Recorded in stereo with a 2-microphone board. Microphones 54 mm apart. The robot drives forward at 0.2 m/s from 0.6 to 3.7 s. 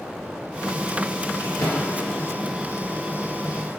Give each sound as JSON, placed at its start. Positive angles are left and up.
{"t": 1.4, "sound": "a drawer", "side_deg": 85, "distance_m": 1.5}